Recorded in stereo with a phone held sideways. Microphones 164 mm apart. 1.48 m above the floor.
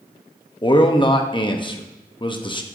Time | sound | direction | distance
0.6 | a man speaking | 30° left (ahead or behind) | 0.8 m